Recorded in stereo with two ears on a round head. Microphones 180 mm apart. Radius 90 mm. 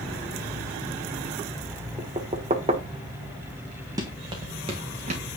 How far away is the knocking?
About 1.4 m.